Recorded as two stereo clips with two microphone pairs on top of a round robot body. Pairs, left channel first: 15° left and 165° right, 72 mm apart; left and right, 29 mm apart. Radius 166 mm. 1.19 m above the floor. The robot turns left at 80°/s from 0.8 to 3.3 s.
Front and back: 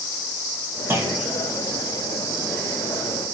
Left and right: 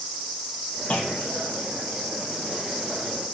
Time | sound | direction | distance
0.9 | a clunk | 135° left | 1.9 m